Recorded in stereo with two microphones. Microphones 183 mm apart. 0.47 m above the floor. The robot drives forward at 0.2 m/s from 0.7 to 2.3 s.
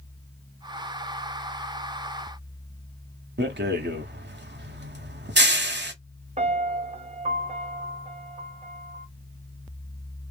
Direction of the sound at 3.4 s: 70° right (ahead or behind).